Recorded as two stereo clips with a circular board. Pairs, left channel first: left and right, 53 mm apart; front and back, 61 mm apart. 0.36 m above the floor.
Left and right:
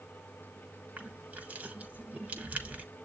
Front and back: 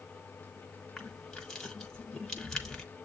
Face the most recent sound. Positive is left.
turn(degrees=-75)